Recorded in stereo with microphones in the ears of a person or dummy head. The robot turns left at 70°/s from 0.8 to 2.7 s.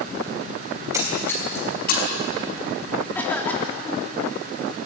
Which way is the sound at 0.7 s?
25° right (ahead or behind).